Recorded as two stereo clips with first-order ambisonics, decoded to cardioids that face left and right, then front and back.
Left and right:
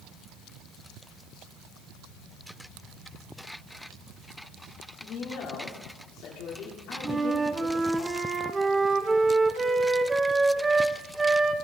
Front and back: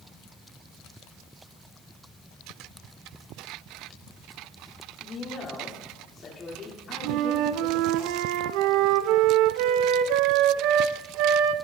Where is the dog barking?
No dog barking in this recording.